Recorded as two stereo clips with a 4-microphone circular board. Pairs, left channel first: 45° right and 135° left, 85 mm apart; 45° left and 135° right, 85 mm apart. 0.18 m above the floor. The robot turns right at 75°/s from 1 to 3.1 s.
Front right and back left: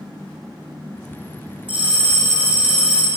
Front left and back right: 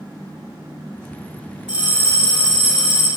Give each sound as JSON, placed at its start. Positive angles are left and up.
{"t": 1.7, "sound": "a bell", "azimuth_deg": 145, "distance_m": 1.8}